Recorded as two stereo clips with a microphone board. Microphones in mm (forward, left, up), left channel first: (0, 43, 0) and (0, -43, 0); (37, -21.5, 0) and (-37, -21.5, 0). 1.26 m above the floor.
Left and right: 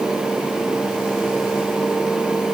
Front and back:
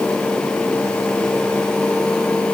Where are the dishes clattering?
No dishes clattering in this recording.